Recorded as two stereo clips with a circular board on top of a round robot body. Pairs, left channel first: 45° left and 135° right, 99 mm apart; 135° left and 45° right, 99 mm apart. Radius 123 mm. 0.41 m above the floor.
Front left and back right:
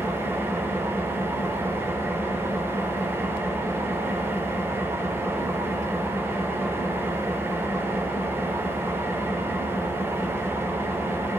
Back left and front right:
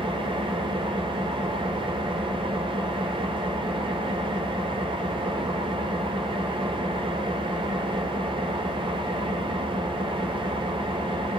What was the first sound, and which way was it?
An engine running, 70° right.